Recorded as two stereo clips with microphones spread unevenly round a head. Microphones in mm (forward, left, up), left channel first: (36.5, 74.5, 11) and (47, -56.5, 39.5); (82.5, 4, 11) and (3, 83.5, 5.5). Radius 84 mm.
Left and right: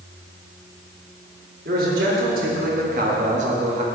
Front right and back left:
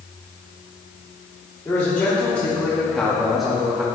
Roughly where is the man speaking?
Behind right.